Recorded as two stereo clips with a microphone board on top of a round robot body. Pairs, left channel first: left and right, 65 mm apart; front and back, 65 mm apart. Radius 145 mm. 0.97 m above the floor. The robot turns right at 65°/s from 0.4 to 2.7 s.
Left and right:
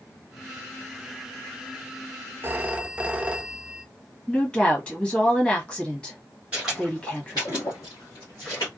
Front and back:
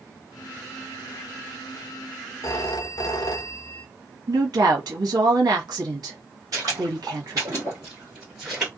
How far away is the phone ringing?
About 0.5 m.